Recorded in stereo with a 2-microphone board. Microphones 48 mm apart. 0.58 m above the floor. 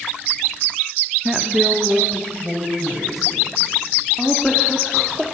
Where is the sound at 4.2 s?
5° left (ahead or behind), 1.3 m.